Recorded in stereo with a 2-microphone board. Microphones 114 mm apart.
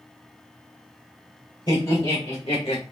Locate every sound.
1.7 s laughter: 45° left (ahead or behind), 1.7 m; by 2.8 s 60° left (ahead or behind), 1.2 m